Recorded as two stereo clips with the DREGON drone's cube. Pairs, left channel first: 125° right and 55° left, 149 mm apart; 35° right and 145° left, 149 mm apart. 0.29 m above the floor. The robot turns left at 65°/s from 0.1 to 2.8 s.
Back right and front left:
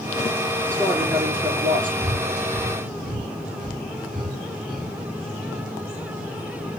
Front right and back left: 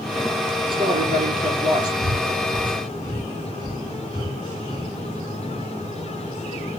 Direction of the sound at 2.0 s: 135° left.